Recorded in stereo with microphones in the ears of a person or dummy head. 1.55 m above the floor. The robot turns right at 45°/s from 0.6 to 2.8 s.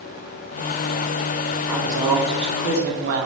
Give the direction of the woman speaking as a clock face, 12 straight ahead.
6 o'clock.